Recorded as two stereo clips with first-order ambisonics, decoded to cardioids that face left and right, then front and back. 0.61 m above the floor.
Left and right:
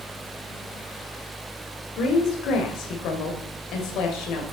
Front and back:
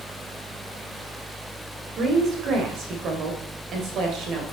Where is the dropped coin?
I don't hear a dropped coin.